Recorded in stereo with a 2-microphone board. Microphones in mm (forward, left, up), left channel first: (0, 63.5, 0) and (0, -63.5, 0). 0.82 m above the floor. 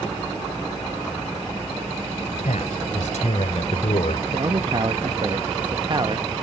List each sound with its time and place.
2.4 s a man speaking: 80° left; by 4.2 s 60° left (ahead or behind)
4.3 s a man speaking: 40° right (ahead or behind)